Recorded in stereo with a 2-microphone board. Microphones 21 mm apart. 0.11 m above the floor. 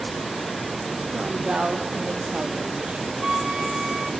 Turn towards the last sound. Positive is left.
turn(degrees=-30)  # may be behind; listen again after turning